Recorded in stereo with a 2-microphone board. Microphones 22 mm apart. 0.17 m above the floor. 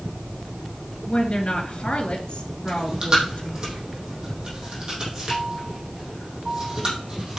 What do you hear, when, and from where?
1.1 s a woman speaking: 45° left (ahead or behind), 2.5 m
2.7 s chewing: 35° right (ahead or behind), 4 m